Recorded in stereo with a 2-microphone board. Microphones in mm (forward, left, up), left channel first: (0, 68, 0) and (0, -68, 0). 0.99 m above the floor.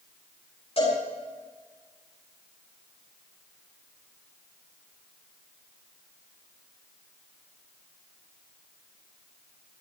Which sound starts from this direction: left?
A cowbell, at 0.8 s.